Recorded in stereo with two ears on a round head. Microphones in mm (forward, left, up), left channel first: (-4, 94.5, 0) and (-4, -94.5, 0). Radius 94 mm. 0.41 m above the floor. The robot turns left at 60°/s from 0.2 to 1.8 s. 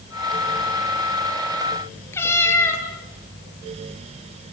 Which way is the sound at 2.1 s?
10° left (ahead or behind).